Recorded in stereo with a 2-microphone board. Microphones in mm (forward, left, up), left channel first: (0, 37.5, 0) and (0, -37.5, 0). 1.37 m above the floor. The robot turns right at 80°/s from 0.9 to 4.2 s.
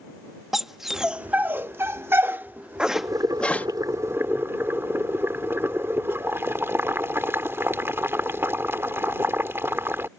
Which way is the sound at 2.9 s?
140° right.